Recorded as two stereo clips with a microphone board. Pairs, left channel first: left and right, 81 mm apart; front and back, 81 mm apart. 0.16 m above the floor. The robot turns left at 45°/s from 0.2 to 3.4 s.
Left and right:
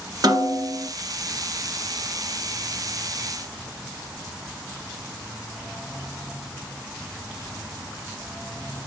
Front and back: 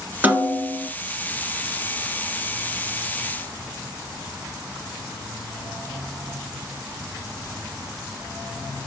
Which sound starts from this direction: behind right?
A snare drum, at 0.2 s.